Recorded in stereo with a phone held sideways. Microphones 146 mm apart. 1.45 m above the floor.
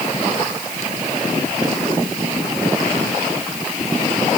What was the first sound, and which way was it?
Only background noise.